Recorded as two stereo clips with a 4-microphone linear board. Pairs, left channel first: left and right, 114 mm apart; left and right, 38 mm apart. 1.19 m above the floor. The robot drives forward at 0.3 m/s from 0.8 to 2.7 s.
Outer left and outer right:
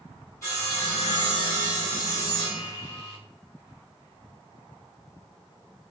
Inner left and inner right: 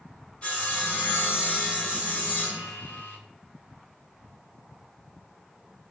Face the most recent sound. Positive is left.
turn(degrees=35)  # may be behind; listen again after turning